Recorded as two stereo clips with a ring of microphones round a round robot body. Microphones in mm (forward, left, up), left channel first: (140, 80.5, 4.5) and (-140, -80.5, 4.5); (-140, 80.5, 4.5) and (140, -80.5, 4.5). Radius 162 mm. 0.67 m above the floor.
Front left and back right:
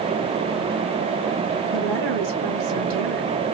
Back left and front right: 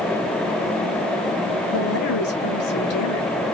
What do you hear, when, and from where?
1.7 s a woman speaking: 165° right, 2.5 m